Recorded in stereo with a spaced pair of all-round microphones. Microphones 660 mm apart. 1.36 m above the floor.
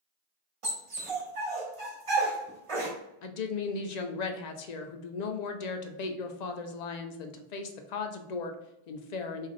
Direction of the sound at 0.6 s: 50° right (ahead or behind).